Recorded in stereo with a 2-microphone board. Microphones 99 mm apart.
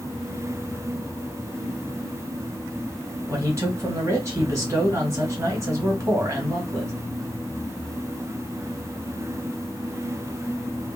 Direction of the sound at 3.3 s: 30° right (ahead or behind).